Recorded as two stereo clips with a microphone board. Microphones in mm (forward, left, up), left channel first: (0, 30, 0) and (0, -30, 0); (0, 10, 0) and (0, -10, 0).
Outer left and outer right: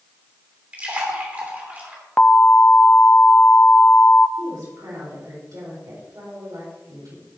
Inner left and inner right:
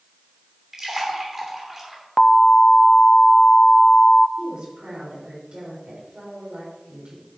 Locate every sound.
0.7 s a splash: 25° right (ahead or behind), 2.5 m
2.2 s an alarm: 20° left (ahead or behind), 0.6 m
4.4 s a woman speaking: 75° right (ahead or behind), 4 m